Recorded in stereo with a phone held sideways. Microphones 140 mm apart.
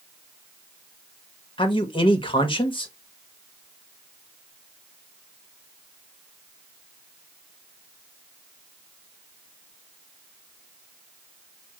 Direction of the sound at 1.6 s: 35° left (ahead or behind).